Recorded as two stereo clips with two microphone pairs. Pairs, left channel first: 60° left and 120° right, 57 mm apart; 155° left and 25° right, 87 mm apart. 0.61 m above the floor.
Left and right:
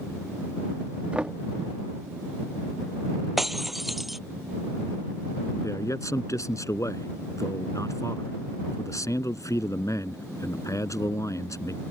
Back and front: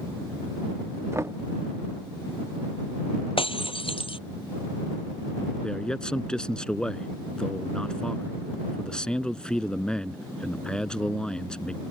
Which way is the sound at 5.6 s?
75° left.